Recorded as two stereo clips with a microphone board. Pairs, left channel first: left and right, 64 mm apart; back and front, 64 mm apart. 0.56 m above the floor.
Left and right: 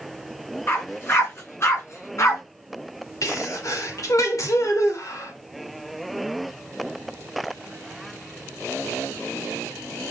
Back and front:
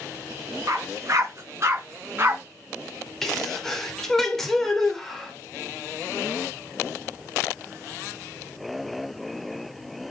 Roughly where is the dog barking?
Ahead left.